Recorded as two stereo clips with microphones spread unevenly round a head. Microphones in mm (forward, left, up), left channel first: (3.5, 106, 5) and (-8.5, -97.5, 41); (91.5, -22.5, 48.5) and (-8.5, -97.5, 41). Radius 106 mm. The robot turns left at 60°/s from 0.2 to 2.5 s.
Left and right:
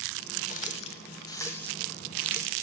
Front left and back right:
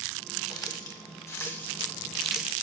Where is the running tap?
60° left, 1.1 m; by 2.6 s 60° right, 1.1 m.